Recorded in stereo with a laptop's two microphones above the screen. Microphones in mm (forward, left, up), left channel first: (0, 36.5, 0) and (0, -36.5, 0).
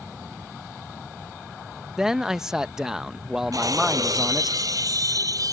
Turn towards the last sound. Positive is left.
turn(degrees=-60)  # may be behind; listen again after turning